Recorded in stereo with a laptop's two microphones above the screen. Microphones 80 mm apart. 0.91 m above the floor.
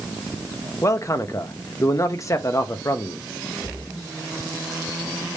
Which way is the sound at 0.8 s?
40° left (ahead or behind).